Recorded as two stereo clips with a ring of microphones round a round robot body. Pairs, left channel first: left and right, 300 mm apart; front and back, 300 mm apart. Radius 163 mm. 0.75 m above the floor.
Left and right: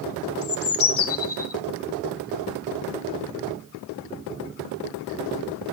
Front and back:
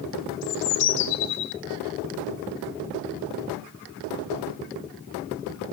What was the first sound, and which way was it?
A bird, 45° left.